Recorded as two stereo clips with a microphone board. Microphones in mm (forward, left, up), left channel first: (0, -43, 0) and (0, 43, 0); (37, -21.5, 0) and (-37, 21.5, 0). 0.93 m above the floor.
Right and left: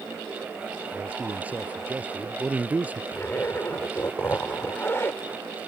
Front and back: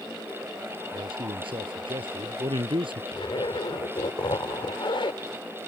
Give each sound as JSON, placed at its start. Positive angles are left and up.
{"t": 0.9, "sound": "a man speaking", "azimuth_deg": 165}
{"t": 3.1, "sound": "a zipper", "azimuth_deg": -30}